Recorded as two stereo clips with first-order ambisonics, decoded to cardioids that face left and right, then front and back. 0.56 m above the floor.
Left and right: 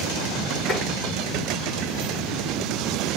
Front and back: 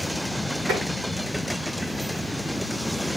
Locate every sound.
0.7 s tapping: 155° left, 6 m